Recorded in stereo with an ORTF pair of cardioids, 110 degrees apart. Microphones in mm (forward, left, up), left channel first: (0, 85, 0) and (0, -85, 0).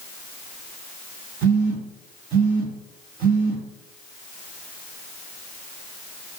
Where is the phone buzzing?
60° right, 1.1 m.